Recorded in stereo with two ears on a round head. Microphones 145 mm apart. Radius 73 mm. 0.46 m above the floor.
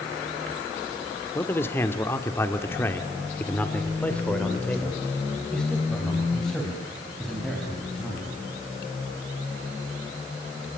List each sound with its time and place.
1.4 s a man speaking: 15° left (ahead or behind), 1.7 m; by 8.4 s centre (ahead or behind), 5 m